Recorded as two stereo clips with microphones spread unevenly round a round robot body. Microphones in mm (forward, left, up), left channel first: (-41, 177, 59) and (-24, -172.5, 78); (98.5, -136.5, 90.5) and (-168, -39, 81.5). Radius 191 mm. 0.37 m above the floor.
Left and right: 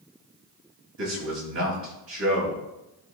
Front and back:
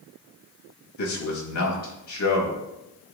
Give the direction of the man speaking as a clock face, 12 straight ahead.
1 o'clock.